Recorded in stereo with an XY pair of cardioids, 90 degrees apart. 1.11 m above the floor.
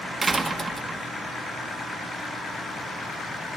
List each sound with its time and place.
0.2 s a door slam: 30° right, 1.3 m